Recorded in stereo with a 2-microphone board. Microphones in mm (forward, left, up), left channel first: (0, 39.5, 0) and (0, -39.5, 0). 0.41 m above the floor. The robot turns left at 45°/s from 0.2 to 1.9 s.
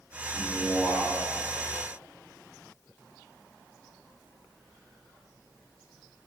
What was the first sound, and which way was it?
A man speaking, 10° right (ahead or behind).